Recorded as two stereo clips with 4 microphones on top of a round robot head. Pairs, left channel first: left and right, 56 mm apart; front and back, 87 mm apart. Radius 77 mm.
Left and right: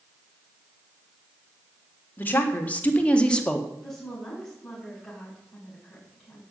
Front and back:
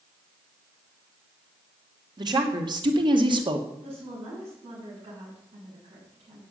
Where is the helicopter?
I don't hear a helicopter.